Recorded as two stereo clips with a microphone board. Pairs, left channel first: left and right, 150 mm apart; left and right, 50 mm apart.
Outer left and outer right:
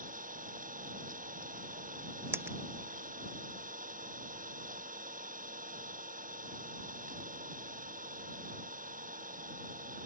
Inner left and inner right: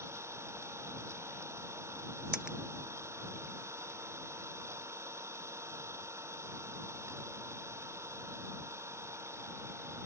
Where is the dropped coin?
15° right (ahead or behind).